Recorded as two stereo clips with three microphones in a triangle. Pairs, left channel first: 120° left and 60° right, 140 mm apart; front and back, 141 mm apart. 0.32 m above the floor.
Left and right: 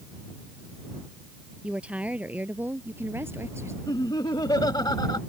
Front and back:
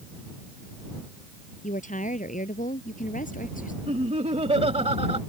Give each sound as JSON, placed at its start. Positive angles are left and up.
{"t": 1.6, "sound": "a woman speaking", "azimuth_deg": 20}
{"t": 3.9, "sound": "laughter", "azimuth_deg": 170}